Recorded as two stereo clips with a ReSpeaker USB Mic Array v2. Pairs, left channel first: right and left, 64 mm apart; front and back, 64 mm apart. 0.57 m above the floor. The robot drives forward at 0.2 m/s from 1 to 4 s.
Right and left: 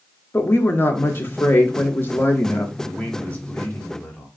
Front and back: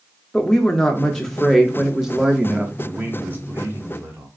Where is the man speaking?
135° right, 0.9 m; by 4.3 s 145° right, 1.1 m.